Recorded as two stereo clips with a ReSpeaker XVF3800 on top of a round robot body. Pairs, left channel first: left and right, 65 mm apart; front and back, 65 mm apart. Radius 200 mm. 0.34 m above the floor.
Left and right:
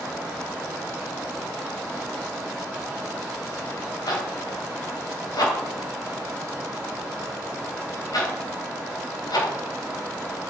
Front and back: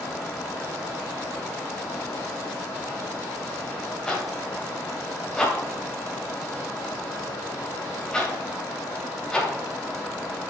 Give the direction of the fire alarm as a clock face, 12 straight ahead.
I don't hear a fire alarm.